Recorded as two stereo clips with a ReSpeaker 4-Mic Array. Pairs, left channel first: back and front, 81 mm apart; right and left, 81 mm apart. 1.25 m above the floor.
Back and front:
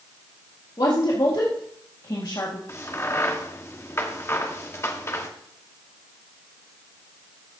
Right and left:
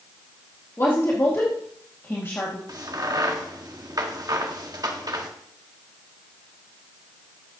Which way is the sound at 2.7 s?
125° left.